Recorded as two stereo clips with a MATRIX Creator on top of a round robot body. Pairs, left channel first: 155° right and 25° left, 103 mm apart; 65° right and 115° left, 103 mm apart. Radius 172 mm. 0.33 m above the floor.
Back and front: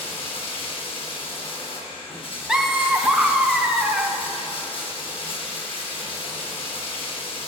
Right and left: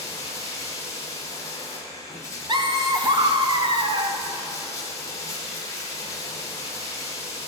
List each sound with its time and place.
0.0 s running water: 125° right, 1.7 m
2.5 s laughter: 105° left, 1.1 m